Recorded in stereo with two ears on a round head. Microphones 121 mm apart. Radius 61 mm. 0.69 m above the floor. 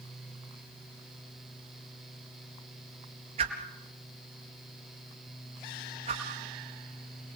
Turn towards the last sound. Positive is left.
turn(degrees=-50)  # may be behind; listen again after turning